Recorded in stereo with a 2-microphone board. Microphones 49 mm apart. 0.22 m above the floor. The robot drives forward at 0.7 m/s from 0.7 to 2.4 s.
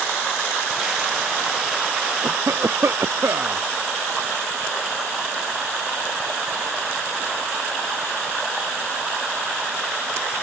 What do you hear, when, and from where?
2.2 s a cough: 65° right (ahead or behind)